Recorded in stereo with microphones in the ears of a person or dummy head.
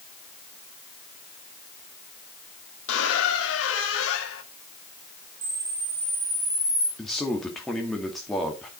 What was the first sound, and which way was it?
A squeak, 75° left (ahead or behind).